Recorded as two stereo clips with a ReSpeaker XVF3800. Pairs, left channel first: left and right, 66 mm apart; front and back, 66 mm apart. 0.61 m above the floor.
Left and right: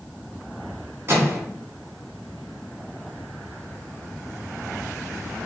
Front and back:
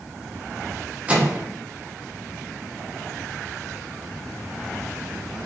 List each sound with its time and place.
1.1 s a microwave: 120° right, 0.6 m